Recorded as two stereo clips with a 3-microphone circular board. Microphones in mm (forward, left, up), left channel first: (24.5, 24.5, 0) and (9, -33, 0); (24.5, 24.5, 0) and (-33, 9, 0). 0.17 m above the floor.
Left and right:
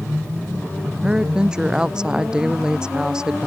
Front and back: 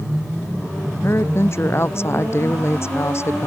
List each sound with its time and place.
1.0 s a woman speaking: 30° right